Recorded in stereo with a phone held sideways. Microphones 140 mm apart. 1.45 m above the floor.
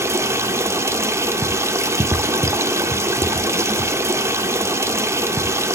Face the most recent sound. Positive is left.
turn(degrees=-20)  # may be behind; listen again after turning